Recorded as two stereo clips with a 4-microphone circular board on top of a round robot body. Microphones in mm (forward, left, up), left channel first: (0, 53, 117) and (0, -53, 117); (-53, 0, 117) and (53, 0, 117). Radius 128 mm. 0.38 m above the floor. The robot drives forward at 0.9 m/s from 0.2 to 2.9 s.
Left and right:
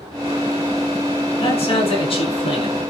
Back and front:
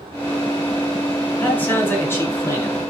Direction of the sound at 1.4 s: 105° left.